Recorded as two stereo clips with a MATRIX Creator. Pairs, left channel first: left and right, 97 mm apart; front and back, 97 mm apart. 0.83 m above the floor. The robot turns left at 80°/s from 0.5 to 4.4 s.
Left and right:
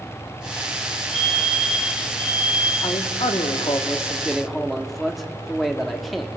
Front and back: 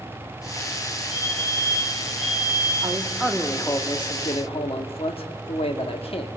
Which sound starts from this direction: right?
A fire alarm, at 1.1 s.